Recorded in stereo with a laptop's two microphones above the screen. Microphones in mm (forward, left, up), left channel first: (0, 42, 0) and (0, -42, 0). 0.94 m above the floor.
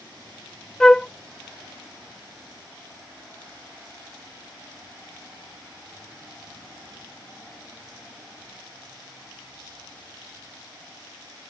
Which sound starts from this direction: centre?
A flute, at 0.8 s.